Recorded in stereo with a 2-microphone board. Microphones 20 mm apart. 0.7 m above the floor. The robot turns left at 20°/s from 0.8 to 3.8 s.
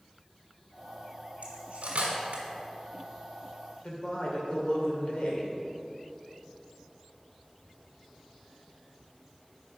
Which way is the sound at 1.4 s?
80° right.